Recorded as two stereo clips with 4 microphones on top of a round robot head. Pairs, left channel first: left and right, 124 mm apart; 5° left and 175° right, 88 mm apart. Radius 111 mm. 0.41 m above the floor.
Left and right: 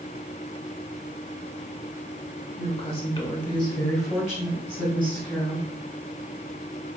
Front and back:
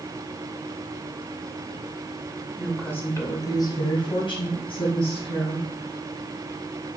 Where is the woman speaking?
100° left, 1.2 m; by 5.7 s 15° right, 3.5 m.